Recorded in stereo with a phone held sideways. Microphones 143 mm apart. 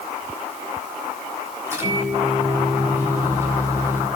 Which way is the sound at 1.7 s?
20° right (ahead or behind).